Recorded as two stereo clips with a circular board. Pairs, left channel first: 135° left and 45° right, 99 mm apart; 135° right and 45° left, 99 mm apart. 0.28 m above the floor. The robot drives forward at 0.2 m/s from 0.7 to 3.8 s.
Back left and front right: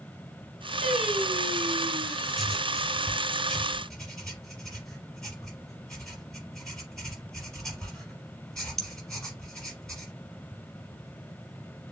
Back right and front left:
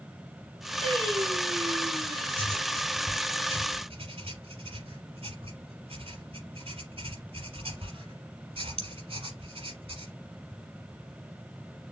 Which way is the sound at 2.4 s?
50° left.